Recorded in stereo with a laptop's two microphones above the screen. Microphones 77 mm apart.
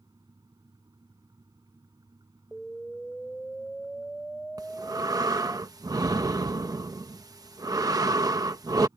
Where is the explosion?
5° left (ahead or behind).